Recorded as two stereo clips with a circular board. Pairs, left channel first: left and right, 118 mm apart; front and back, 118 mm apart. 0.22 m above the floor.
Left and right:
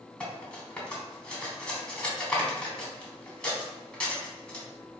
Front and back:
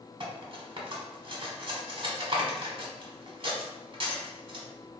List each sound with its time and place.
0.2 s cutlery clinking: 165° left, 0.9 m